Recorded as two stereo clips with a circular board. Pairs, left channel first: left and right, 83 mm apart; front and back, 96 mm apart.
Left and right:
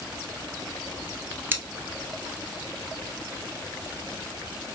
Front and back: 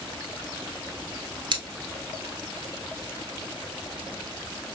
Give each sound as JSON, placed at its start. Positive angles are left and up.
{"t": 1.5, "sound": "scissors", "azimuth_deg": -150, "distance_m": 0.9}